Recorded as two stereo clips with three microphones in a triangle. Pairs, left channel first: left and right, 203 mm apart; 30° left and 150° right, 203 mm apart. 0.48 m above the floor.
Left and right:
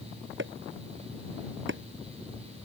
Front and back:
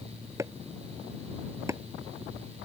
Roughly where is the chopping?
Right.